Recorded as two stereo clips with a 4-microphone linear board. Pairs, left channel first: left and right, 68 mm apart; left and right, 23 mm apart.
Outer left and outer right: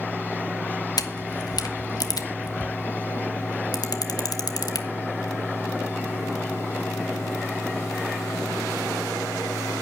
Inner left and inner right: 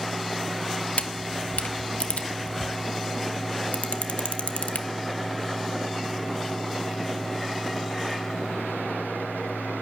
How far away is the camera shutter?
About 1.2 m.